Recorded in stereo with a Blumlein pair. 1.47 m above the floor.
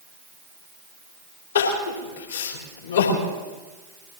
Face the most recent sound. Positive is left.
turn(degrees=65)